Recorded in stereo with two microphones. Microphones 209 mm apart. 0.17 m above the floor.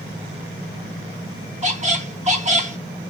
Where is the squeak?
35° right (ahead or behind), 0.6 m.